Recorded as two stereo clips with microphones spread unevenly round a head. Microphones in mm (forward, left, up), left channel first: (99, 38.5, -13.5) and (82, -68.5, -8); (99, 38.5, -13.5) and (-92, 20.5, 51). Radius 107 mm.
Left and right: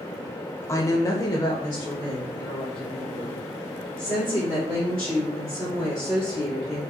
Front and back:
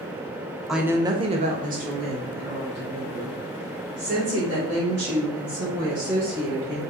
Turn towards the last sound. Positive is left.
turn(degrees=155)